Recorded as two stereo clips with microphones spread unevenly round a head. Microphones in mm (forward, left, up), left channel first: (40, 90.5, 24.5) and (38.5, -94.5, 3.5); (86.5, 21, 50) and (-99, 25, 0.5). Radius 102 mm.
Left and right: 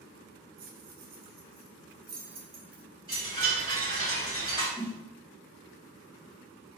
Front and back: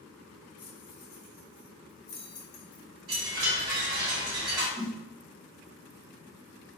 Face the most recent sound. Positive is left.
turn(degrees=165)